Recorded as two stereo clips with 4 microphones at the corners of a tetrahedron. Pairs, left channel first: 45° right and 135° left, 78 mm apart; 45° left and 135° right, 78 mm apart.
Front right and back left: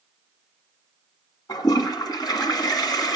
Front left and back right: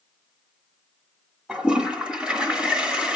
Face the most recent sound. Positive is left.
turn(degrees=-55)